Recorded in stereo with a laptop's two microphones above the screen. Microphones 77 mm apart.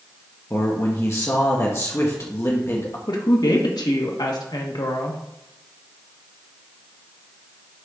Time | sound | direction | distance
0.5 | a man speaking | 35° left (ahead or behind) | 1.4 m
3.1 | a woman speaking | 60° left (ahead or behind) | 1.6 m